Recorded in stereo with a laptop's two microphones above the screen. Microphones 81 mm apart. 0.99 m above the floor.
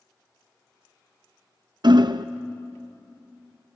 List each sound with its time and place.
1.8 s hammering: 65° right (ahead or behind), 0.5 m